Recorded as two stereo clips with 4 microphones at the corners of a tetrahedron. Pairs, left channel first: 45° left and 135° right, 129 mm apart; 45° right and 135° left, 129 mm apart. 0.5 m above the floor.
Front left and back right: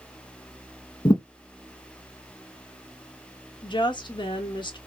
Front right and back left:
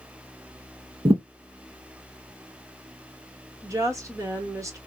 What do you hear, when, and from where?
1.1 s a thud: 95° left, 0.9 m
3.6 s a woman speaking: 80° left, 1.0 m